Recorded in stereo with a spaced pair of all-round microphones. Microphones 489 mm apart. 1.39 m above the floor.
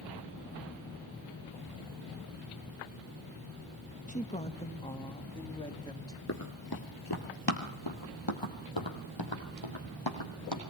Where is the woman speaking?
15° left (ahead or behind), 1.3 m; by 6.2 s 10° left (ahead or behind), 3 m.